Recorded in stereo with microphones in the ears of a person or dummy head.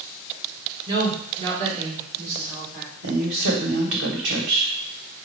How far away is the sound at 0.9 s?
About 1.6 m.